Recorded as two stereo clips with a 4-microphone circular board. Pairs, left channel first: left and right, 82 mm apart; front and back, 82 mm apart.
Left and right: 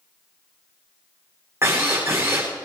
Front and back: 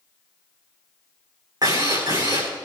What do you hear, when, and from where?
1.6 s a drill: 145° right, 8.5 m